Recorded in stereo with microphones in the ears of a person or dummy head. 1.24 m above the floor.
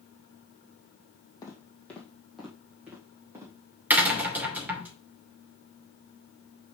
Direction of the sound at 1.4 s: 20° left (ahead or behind).